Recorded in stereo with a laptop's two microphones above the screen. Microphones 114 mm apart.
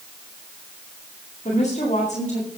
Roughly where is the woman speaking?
Left.